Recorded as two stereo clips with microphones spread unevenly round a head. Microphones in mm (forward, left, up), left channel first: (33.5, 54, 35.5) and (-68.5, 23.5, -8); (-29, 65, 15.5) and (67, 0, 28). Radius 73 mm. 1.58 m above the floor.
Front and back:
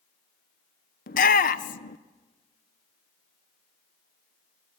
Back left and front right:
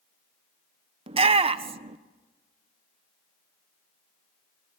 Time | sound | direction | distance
1.1 | a shout | 5° left | 1.4 m